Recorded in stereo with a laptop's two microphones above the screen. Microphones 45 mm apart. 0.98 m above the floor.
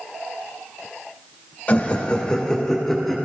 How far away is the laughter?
About 1.3 m.